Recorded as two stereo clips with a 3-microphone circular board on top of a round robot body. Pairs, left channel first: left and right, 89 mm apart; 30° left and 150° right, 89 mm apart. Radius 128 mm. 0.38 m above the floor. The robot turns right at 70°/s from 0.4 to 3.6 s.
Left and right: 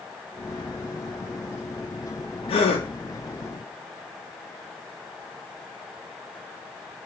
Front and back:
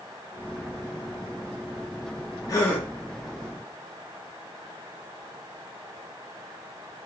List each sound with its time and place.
2.5 s a gasp: 80° left, 0.6 m; by 2.9 s 110° left, 0.6 m